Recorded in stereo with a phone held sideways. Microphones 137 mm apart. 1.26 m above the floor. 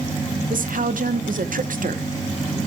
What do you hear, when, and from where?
0.5 s a woman speaking: 85° right, 0.9 m